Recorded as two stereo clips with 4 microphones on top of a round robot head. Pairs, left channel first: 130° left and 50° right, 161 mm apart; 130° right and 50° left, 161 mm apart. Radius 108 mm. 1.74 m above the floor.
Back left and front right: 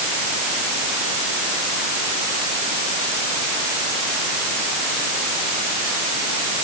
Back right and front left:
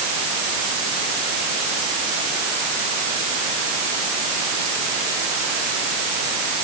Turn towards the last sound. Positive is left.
No sound to turn to.